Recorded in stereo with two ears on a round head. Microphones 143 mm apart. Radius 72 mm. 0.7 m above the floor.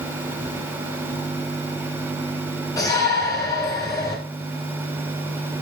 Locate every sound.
2.8 s a shout: 25° left (ahead or behind), 7.5 m